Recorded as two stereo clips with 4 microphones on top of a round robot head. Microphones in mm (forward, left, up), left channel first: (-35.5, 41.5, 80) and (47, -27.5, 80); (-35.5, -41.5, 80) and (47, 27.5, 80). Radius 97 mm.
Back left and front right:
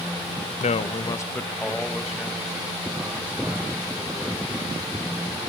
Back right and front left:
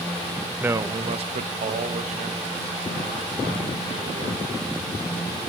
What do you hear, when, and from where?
0.6 s a man speaking: 120° left, 0.6 m; by 5.0 s 35° left, 3.5 m